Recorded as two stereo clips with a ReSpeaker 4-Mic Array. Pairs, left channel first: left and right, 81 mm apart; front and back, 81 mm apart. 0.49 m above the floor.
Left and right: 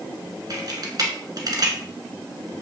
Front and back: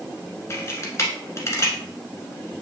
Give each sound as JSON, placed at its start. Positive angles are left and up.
{"t": 0.5, "sound": "a camera shutter", "azimuth_deg": -55, "distance_m": 1.2}